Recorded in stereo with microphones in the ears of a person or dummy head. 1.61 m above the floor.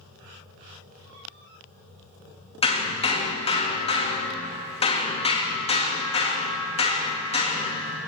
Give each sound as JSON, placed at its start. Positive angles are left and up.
{"t": 2.6, "sound": "hammering", "side_deg": 25, "distance_m": 2.0}